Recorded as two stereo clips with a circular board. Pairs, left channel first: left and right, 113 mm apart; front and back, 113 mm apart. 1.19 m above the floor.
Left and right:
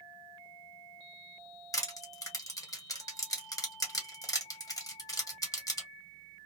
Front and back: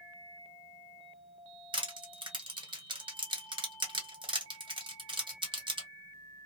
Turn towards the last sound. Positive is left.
turn(degrees=145)